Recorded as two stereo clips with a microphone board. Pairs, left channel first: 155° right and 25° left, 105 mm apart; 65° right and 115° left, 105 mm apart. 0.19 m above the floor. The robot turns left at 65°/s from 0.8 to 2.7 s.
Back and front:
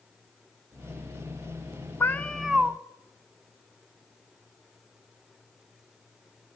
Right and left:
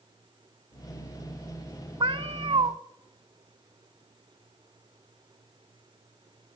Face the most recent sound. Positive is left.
turn(degrees=95)